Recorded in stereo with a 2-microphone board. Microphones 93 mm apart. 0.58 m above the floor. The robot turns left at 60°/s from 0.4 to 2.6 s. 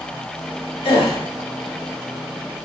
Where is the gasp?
65° left (ahead or behind), 0.8 m; by 1.2 s 80° left, 0.8 m.